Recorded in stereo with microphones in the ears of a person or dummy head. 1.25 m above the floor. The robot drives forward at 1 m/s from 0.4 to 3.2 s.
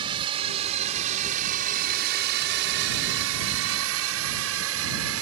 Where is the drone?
30° right (ahead or behind); by 5.2 s 70° right (ahead or behind).